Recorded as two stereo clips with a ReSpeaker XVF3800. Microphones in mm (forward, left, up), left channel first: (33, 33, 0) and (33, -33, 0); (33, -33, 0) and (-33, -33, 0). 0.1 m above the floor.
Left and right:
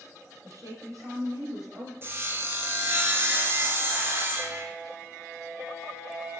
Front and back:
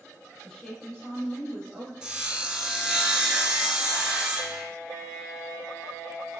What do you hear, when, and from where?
0.4 s a woman speaking: 80° right, 2.5 m
2.0 s sawing: 110° right, 1.2 m